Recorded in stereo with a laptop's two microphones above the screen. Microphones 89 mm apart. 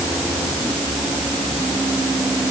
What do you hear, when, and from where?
Only background noise.